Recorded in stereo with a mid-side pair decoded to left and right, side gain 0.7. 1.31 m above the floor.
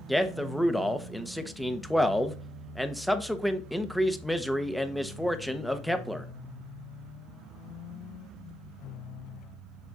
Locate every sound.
0.1 s a man speaking: straight ahead, 0.8 m